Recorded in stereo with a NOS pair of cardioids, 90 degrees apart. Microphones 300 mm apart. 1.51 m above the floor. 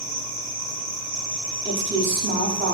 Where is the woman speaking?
35° right, 0.7 m.